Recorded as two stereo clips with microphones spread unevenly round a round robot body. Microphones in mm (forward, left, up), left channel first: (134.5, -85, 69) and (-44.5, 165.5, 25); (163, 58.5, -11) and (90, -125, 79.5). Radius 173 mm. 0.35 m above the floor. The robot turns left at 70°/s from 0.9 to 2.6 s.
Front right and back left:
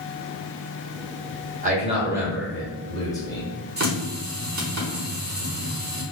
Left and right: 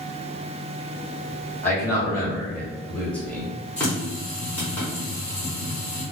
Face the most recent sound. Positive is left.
turn(degrees=110)